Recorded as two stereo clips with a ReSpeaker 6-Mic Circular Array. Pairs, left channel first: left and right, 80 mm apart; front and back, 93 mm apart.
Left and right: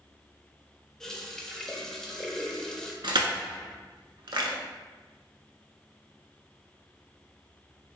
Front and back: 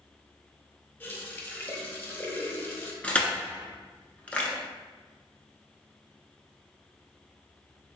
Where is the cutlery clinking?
I don't hear cutlery clinking.